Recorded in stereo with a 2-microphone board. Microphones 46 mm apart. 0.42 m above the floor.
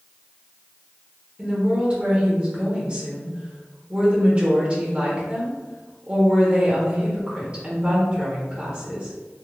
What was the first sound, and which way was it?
A woman speaking, 25° right (ahead or behind).